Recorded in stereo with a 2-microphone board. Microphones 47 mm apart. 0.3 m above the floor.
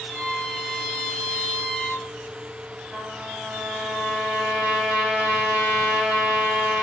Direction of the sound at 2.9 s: 20° right (ahead or behind).